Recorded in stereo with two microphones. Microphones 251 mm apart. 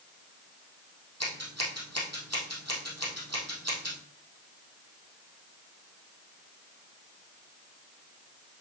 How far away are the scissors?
About 3 m.